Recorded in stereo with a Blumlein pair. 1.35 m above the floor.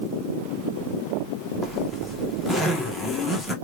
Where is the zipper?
5° left, 1.2 m.